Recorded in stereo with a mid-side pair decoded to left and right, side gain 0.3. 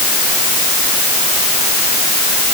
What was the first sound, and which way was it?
Only background noise.